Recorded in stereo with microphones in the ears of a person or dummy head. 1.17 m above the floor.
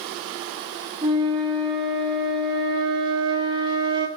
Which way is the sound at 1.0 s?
30° right (ahead or behind).